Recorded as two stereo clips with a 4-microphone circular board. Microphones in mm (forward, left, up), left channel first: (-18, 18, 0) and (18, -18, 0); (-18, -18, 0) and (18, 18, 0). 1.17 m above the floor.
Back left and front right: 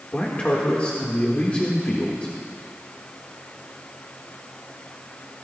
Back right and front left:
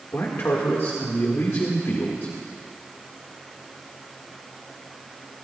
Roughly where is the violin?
I don't hear a violin.